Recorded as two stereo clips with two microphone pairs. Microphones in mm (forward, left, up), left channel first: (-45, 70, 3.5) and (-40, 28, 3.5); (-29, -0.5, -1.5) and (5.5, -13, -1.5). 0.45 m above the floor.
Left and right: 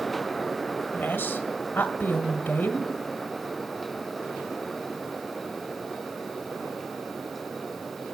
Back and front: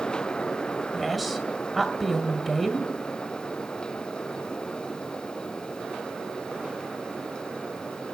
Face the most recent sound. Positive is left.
turn(degrees=65)